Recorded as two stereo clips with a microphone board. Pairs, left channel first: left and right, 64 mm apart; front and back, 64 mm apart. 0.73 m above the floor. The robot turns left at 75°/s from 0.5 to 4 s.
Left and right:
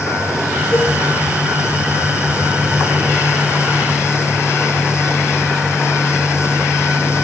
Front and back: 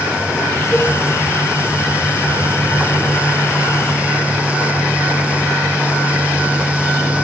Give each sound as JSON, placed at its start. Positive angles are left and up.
{"t": 0.7, "sound": "a cowbell", "azimuth_deg": 60, "distance_m": 3.5}